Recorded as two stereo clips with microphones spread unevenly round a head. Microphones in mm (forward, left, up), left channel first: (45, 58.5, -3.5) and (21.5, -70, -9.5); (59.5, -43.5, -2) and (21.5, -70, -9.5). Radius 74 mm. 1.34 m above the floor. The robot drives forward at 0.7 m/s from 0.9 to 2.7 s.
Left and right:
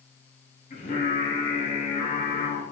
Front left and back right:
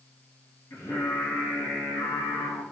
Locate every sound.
0.7 s singing: 50° left, 3.5 m; by 2.6 s 70° left, 3 m